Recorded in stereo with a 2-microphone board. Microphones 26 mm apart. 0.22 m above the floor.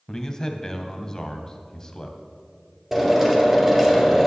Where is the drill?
15° right (ahead or behind), 2.5 m.